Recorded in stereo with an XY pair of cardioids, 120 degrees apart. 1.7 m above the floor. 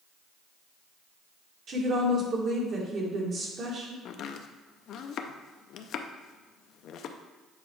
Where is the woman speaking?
50° right, 2 m.